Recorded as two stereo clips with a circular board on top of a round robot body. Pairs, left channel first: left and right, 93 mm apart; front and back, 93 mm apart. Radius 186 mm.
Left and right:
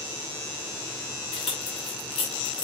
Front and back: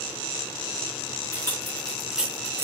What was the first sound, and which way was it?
Keys jangling, 60° left.